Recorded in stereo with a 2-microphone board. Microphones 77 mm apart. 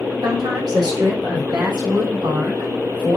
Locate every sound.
0.2 s a woman speaking: 65° right (ahead or behind), 3.5 m; by 3.2 s 60° right (ahead or behind), 5.5 m